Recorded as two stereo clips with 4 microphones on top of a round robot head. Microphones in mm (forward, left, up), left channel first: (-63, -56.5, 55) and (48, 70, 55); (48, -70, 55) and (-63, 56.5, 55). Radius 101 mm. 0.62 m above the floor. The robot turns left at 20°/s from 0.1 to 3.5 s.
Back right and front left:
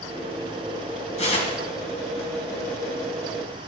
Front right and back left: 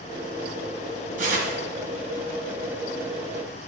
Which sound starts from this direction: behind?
Tearing paper, at 1.2 s.